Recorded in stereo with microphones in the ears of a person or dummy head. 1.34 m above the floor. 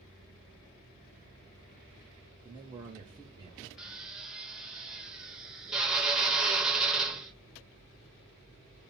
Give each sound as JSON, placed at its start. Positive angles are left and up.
{"t": 2.4, "sound": "a man speaking", "side_deg": -25, "distance_m": 0.6}
{"t": 3.8, "sound": "a drill", "side_deg": 0, "distance_m": 0.5}